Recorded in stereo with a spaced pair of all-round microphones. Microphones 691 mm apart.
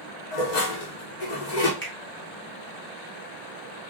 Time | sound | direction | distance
0.3 | dishes clattering | 75° left (ahead or behind) | 1.0 m
1.8 | a finger snap | 15° left (ahead or behind) | 1.2 m